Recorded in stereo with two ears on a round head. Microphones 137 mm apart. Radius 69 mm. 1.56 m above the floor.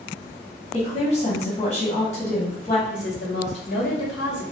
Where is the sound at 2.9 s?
75° left (ahead or behind), 1.4 m.